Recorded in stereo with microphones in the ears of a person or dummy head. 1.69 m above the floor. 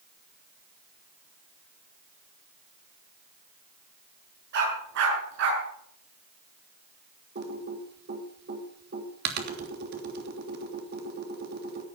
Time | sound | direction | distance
4.5 | a dog barking | 65° right (ahead or behind) | 7 m
7.3 | typing on a keyboard | 55° right (ahead or behind) | 3 m